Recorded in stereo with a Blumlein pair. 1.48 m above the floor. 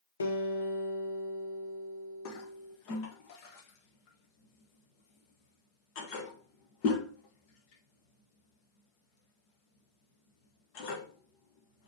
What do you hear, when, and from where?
0.2 s a guitar: 70° left, 1.5 m
2.2 s a toilet flushing: 45° left, 1.7 m